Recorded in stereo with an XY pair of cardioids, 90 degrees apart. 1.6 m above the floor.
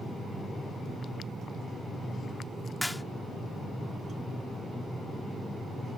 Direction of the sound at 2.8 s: 5° left.